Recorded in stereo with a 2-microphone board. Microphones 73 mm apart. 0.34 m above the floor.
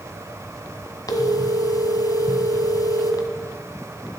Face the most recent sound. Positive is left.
turn(degrees=60)  # may be behind; listen again after turning